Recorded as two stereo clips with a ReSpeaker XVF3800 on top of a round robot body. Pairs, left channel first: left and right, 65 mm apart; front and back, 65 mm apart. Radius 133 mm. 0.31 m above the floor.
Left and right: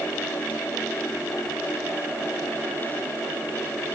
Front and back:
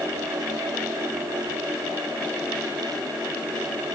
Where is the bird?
No bird in this recording.